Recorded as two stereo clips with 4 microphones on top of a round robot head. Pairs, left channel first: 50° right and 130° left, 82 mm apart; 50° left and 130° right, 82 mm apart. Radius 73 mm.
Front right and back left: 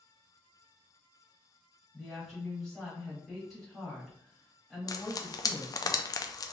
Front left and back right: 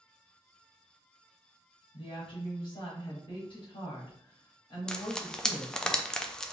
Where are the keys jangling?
No keys jangling in this recording.